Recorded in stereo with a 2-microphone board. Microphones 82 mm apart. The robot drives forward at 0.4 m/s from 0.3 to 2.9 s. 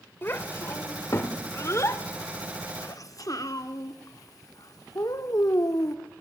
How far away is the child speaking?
About 2 m.